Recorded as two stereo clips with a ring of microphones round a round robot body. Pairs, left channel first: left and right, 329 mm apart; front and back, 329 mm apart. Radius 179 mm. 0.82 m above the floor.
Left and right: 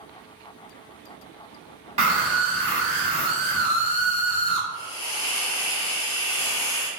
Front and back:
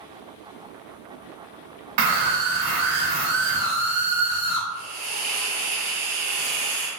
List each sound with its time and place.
2.0 s a scream: 165° right, 1.5 m
4.7 s a hiss: 115° left, 1.4 m